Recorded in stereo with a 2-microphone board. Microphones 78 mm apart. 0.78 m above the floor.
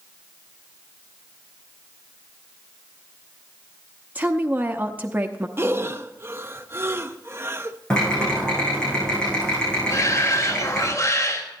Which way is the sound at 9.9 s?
40° left (ahead or behind).